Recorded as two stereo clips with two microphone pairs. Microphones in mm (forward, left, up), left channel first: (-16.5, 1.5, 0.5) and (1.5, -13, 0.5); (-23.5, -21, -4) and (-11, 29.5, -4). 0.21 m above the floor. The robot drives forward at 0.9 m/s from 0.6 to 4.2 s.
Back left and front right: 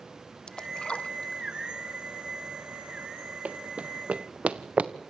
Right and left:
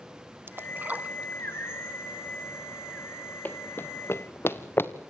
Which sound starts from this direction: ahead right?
Running footsteps, at 3.5 s.